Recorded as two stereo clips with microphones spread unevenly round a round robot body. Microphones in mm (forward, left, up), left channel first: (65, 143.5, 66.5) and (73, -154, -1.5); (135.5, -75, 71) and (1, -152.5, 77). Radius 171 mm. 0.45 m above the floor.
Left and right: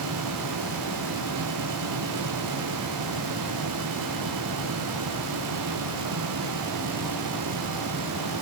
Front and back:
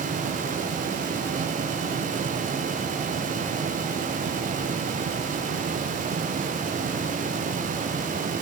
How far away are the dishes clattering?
I don't hear dishes clattering.